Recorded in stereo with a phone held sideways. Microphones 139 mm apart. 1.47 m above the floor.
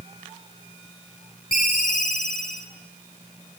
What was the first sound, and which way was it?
A ringtone, 75° left (ahead or behind).